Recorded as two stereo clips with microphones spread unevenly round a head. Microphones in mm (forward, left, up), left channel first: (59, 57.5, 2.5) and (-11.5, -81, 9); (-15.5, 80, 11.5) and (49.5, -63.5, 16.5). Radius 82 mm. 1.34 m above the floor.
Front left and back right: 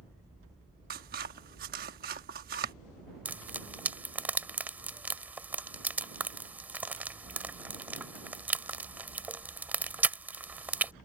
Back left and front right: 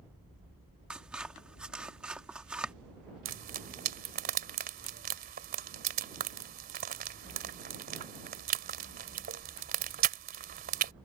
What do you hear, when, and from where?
0.9 s scissors: 150° right
3.2 s frying: 40° right